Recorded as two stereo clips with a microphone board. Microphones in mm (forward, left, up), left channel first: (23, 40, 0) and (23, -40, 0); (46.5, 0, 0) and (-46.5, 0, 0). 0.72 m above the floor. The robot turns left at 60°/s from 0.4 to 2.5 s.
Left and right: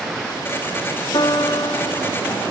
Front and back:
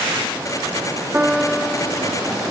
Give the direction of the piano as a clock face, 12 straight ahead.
8 o'clock.